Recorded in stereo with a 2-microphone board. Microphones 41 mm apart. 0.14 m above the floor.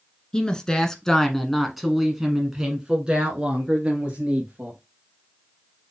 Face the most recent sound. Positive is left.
turn(degrees=-30)  # may be behind; listen again after turning